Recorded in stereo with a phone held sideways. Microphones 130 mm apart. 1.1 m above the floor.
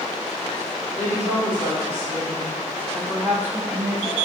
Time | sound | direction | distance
0.9 | a woman speaking | 20° left (ahead or behind) | 2 m